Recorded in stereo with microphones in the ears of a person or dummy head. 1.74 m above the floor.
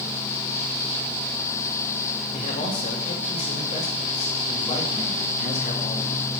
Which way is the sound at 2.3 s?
40° left (ahead or behind).